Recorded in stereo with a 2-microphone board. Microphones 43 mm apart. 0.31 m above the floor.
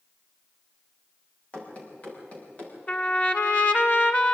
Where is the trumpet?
35° left (ahead or behind), 1.5 m.